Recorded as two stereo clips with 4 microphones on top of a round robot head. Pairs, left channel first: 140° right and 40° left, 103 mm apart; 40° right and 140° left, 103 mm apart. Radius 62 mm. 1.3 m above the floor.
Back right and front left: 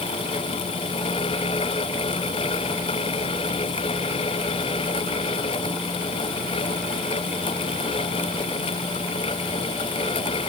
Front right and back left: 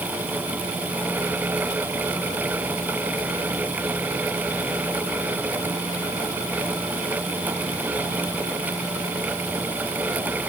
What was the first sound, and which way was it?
Only background noise.